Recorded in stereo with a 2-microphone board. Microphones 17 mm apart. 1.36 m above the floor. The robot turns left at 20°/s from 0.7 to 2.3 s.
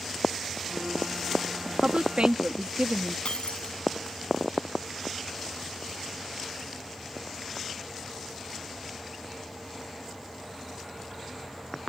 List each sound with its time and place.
1.6 s a woman speaking: 75° right (ahead or behind); by 3.1 s 85° right
3.2 s breaking glass: 80° left